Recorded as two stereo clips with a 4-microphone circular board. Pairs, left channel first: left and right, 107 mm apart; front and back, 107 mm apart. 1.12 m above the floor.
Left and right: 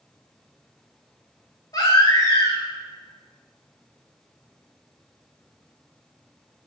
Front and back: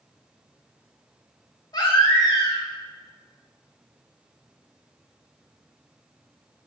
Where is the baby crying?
45° left, 1.3 m.